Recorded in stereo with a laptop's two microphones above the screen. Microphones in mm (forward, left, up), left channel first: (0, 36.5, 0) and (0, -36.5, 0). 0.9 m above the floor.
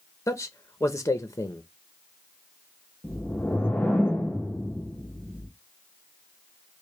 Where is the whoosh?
20° left (ahead or behind), 0.7 m.